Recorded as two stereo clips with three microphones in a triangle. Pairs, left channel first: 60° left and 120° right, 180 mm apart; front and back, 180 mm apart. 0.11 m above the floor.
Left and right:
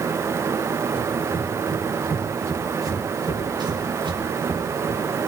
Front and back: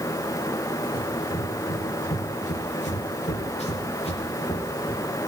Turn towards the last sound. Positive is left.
turn(degrees=-60)